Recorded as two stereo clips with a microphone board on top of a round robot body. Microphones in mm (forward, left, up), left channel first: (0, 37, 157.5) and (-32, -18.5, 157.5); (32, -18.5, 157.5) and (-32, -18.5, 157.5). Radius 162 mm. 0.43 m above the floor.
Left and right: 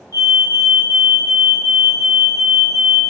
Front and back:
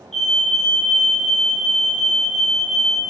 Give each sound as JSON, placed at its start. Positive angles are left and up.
{"t": 0.1, "sound": "a fire alarm", "azimuth_deg": 85, "distance_m": 6.5}